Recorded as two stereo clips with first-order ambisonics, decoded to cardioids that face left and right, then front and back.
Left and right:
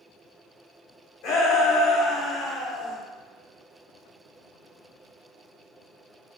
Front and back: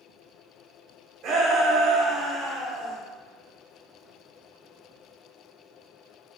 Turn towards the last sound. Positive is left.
turn(degrees=130)